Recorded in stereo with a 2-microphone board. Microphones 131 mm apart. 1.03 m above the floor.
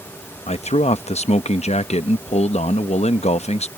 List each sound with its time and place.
0.5 s a man speaking: 55° left (ahead or behind)